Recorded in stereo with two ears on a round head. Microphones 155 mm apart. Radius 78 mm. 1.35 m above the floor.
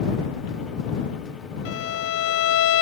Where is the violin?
80° left.